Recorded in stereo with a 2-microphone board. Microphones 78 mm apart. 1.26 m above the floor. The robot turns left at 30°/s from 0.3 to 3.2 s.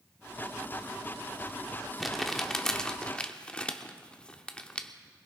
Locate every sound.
2.0 s crumpling: centre (ahead or behind), 0.9 m; by 4.9 s 15° left (ahead or behind), 0.9 m